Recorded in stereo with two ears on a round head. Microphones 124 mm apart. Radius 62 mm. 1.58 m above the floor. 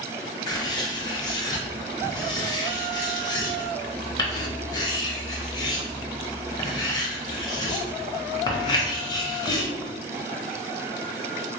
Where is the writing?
30° left (ahead or behind), 0.9 m.